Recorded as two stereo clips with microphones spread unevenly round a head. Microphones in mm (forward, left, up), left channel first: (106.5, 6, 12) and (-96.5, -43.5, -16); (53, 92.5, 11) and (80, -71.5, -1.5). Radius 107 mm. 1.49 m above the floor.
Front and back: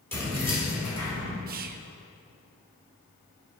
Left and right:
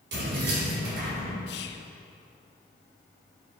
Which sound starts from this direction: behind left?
Whispering, at 1.5 s.